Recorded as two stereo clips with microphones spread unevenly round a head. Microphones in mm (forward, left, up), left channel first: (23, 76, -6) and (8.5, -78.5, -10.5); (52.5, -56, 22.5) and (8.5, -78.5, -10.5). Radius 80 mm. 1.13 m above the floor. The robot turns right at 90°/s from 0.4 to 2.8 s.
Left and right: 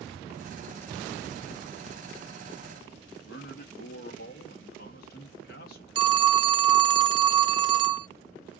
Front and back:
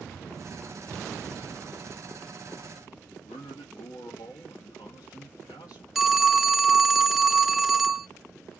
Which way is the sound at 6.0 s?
35° right.